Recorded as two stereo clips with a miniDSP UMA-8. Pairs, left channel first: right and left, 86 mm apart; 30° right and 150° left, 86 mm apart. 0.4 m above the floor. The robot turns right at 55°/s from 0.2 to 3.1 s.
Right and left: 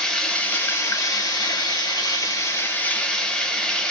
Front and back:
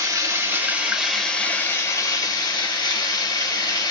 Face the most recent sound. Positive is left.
turn(degrees=-10)